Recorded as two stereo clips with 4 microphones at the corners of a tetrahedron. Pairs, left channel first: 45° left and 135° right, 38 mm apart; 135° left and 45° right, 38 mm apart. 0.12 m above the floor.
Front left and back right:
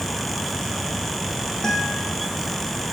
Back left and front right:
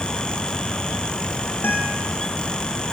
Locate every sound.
1.6 s a guitar: 120° left, 4 m